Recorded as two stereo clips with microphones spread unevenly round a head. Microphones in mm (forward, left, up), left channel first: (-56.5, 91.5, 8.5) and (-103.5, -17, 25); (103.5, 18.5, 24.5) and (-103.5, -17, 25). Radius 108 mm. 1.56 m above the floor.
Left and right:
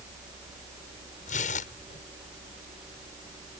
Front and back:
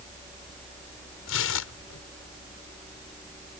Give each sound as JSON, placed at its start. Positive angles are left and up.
{"t": 1.3, "sound": "tearing paper", "azimuth_deg": 30}